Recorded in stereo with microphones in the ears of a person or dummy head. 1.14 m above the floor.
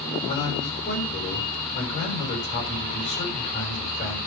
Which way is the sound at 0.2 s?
35° left (ahead or behind).